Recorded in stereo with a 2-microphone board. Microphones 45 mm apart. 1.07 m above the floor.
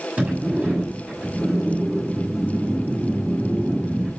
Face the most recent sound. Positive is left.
turn(degrees=-30)  # may be behind; listen again after turning